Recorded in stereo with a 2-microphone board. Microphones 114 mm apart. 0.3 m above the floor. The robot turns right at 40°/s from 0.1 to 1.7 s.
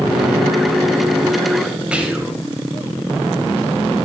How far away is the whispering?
About 1.1 m.